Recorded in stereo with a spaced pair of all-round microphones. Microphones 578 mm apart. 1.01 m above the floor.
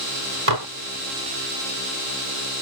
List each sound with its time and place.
0.5 s dishes clattering: 65° right (ahead or behind)